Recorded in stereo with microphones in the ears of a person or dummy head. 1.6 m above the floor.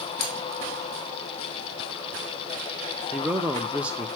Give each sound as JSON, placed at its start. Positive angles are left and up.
{"t": 0.2, "sound": "cutlery clinking", "side_deg": 65, "distance_m": 1.4}
{"t": 3.1, "sound": "a man speaking", "side_deg": 0, "distance_m": 0.7}